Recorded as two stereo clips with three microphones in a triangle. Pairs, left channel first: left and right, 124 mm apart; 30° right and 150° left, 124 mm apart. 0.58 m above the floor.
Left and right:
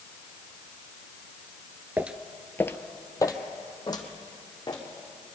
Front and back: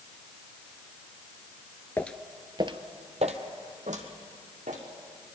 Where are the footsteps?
50° right, 0.5 m; by 4.8 s 145° left, 2.5 m.